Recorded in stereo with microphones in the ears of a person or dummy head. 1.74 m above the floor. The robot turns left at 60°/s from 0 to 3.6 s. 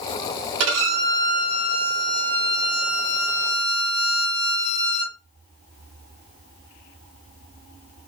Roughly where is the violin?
Right.